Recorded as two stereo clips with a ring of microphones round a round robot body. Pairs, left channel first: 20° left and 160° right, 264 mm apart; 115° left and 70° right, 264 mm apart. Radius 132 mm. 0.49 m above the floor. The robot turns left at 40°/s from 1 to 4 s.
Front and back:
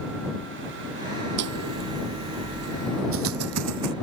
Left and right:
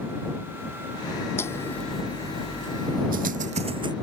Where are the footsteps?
170° right; by 3.9 s 140° right.